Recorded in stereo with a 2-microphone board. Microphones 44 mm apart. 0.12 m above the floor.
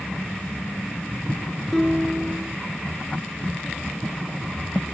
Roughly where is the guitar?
Centre.